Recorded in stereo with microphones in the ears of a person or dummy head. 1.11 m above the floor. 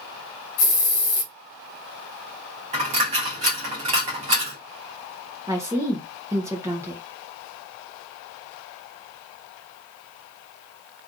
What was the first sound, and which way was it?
A hiss, 50° left (ahead or behind).